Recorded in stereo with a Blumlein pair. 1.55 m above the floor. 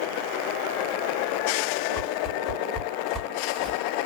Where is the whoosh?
10° left, 1.6 m.